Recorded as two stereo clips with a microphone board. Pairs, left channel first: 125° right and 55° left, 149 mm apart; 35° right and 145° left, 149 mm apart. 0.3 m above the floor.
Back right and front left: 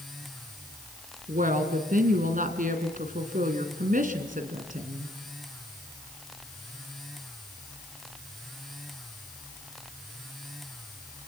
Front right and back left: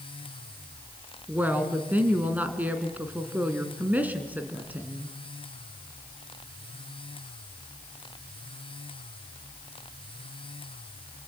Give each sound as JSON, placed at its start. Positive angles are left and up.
{"t": 1.3, "sound": "a woman speaking", "azimuth_deg": 65, "distance_m": 2.5}